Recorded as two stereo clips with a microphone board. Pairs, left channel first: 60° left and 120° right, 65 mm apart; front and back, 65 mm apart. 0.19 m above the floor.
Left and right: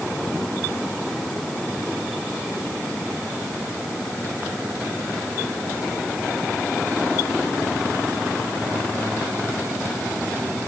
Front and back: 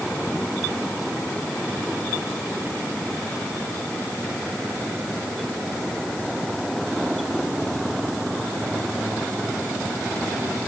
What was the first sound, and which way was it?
Only background noise.